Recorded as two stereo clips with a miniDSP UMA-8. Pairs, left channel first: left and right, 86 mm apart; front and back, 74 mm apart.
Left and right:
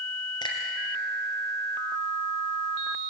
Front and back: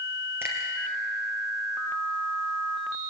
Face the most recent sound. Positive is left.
turn(degrees=120)